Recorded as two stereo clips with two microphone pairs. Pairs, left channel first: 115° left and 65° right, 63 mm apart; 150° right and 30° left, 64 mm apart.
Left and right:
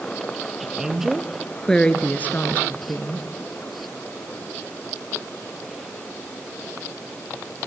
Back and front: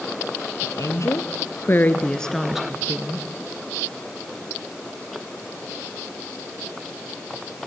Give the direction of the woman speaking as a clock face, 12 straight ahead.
5 o'clock.